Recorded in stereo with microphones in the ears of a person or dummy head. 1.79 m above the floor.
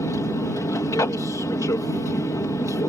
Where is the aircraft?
10° left (ahead or behind).